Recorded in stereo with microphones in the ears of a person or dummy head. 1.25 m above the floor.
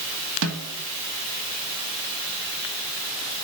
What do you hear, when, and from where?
0.4 s a snare drum: 70° right (ahead or behind), 2.5 m